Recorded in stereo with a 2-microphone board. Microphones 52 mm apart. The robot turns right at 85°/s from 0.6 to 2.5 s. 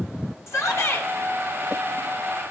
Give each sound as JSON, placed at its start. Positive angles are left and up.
{"t": 0.5, "sound": "a shout", "azimuth_deg": 80, "distance_m": 2.5}